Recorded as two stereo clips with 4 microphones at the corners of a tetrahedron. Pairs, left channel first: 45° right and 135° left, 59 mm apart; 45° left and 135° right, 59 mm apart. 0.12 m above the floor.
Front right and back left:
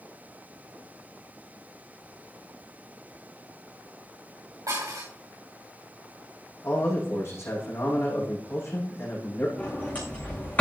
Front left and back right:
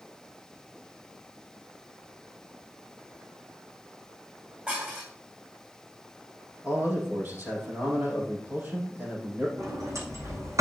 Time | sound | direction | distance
4.7 | dishes clattering | 160° left | 6 m
6.6 | a man speaking | 80° right | 5.5 m
9.6 | a sliding door | 110° right | 5 m